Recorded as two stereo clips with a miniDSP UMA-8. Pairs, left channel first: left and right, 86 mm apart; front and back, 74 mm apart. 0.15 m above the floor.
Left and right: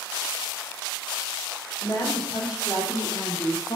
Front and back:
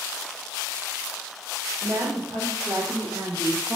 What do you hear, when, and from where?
1.8 s a woman speaking: 140° left, 6.5 m; by 3.8 s 130° left, 5 m